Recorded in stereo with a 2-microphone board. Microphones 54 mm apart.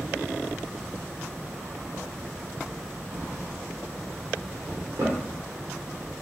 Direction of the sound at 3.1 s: 80° right.